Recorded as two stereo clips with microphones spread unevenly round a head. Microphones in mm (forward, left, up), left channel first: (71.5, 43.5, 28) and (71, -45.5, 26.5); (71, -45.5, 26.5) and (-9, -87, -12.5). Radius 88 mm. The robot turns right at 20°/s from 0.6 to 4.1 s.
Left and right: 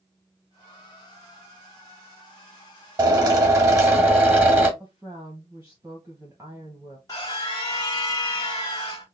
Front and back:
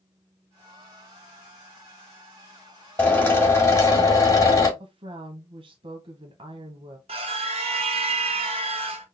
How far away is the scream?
About 1.1 m.